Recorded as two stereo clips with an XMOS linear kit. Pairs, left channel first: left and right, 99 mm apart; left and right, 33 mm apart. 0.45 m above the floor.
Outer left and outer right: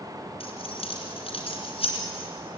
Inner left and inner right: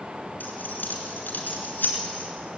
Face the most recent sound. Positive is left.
turn(degrees=70)  # may be behind; listen again after turning